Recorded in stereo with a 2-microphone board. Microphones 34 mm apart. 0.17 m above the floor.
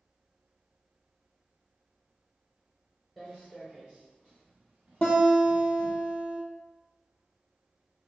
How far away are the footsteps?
About 1.5 m.